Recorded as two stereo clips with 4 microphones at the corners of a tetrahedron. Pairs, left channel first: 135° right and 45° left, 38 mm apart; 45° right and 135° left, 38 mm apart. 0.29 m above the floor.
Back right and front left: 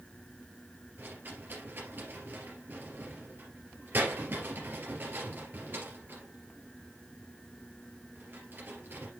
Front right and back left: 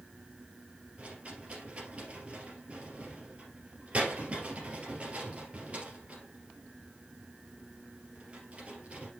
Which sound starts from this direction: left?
A rattle, at 1.0 s.